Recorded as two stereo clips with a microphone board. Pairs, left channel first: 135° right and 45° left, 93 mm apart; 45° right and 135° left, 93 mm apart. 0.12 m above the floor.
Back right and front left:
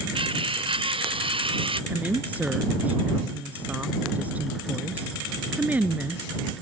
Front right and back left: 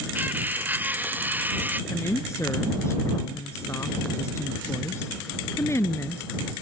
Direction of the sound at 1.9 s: 15° right.